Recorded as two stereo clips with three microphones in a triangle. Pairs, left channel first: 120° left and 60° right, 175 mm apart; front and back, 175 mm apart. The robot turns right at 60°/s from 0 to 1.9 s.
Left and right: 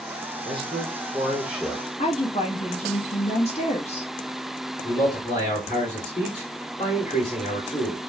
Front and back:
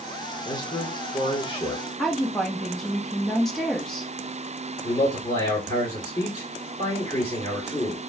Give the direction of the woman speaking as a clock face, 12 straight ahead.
9 o'clock.